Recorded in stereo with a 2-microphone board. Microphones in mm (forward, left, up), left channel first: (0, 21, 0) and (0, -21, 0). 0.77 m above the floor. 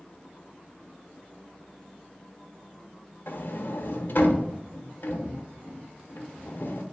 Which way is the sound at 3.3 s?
55° left (ahead or behind).